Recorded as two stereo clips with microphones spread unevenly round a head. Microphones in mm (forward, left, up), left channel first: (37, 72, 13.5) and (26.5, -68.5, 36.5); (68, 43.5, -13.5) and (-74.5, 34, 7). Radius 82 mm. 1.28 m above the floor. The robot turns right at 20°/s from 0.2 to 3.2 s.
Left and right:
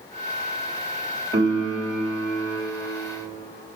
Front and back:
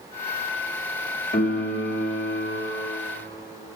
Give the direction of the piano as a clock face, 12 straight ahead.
1 o'clock.